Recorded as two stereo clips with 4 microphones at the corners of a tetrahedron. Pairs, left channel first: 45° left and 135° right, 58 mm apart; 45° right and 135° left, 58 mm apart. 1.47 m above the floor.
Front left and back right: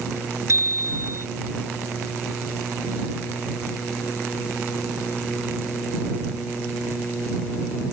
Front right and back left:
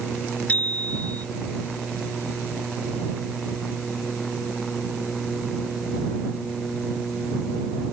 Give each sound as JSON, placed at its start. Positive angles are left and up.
{"t": 0.5, "sound": "a bicycle bell", "azimuth_deg": -105}